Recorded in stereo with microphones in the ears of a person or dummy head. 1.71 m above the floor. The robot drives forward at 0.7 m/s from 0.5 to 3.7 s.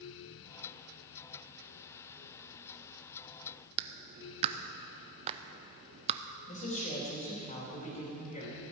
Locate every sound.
3.8 s a clap: 35° right (ahead or behind), 0.5 m
6.5 s a woman speaking: 40° left (ahead or behind), 3.5 m